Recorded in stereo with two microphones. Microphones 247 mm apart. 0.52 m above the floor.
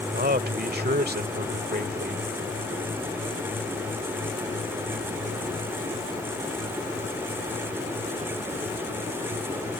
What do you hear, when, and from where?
0.1 s a man speaking: 40° right (ahead or behind)